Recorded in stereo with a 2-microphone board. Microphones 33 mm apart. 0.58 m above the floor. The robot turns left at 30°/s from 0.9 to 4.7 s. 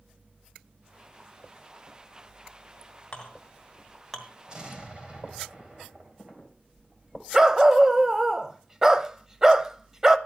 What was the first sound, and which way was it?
A clink, 30° left (ahead or behind).